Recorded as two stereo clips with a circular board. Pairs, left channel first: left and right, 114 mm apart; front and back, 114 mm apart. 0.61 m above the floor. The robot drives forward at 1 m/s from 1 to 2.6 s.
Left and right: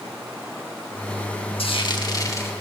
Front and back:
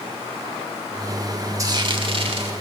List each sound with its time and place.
1.6 s frying: 120° left, 0.8 m; by 2.5 s 155° left, 1.5 m